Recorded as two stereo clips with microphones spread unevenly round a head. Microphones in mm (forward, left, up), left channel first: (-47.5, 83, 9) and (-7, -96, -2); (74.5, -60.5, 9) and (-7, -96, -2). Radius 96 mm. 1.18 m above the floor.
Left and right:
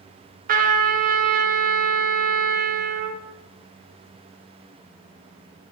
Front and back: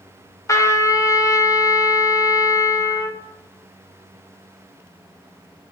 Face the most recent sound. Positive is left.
turn(degrees=-25)